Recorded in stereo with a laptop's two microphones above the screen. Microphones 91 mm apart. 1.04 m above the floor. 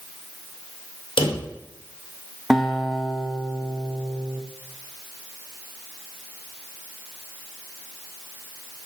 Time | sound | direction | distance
1.2 | a drawer | 75° left (ahead or behind) | 1.8 m
2.5 | a guitar | centre (ahead or behind) | 0.8 m